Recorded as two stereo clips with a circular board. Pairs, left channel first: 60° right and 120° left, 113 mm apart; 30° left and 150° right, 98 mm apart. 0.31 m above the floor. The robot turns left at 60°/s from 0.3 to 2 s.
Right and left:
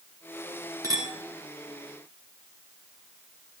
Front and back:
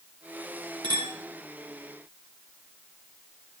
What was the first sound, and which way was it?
A clink, straight behind.